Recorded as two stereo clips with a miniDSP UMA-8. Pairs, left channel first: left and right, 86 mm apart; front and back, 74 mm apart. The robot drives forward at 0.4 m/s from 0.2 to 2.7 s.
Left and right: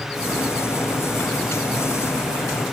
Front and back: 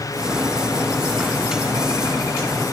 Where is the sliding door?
I don't hear a sliding door.